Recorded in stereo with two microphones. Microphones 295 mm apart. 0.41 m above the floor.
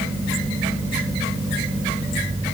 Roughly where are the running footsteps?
No running footsteps in this recording.